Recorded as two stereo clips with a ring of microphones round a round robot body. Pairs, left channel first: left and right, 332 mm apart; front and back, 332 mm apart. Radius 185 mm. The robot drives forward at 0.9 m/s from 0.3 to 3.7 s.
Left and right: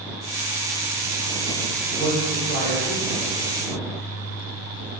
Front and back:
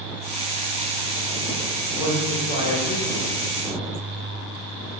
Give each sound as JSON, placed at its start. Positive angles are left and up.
{"t": 1.9, "sound": "a man speaking", "azimuth_deg": 30, "distance_m": 1.7}